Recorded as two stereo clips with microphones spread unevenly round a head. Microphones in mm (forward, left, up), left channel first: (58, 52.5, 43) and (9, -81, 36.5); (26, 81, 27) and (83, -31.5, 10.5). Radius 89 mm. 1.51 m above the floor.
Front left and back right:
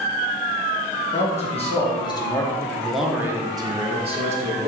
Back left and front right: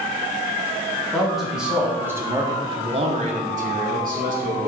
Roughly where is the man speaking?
Ahead left.